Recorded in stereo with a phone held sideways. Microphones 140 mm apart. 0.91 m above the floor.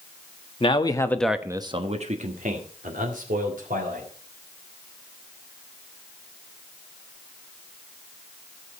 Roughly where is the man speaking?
Left.